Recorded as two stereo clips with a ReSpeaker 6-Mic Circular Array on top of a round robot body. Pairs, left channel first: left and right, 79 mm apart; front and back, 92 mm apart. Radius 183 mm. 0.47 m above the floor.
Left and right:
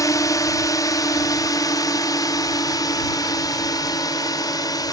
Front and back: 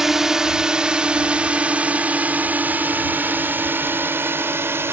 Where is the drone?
95° left; by 4.9 s 115° left.